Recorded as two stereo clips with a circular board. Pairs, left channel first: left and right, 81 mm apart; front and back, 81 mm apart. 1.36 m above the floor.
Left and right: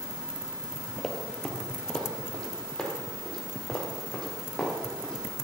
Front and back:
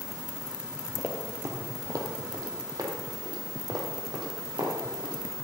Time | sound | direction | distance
1.0 | running footsteps | 165° left | 1.6 m